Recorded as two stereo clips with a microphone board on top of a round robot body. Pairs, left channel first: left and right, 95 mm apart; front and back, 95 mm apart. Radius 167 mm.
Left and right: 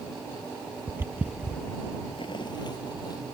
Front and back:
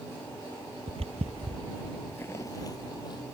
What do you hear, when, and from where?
0.9 s footsteps: 160° right; by 3.2 s 45° left